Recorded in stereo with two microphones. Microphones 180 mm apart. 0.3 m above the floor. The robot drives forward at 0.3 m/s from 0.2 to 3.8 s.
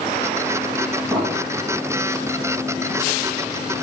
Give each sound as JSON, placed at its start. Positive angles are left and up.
{"t": 1.1, "sound": "an explosion", "side_deg": 10, "distance_m": 5.5}